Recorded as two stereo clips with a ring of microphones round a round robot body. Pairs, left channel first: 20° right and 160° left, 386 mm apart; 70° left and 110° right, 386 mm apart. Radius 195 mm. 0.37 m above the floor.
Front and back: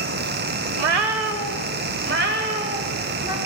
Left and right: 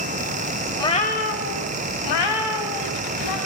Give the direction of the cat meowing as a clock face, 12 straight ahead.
7 o'clock.